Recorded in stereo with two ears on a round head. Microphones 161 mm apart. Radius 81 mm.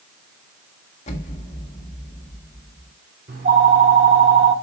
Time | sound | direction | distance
1.1 | an explosion | 40° left (ahead or behind) | 1.7 m
3.3 | a phone ringing | 50° right (ahead or behind) | 2 m